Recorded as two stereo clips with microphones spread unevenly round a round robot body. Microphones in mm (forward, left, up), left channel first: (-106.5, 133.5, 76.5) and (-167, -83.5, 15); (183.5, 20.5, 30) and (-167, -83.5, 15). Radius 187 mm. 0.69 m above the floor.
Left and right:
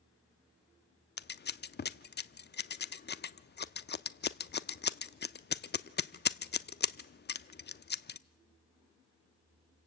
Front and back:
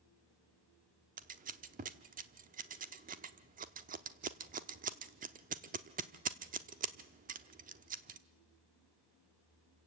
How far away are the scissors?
About 0.8 m.